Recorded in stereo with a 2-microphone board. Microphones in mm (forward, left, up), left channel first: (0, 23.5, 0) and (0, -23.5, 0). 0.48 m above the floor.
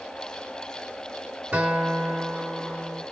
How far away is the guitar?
About 2.5 m.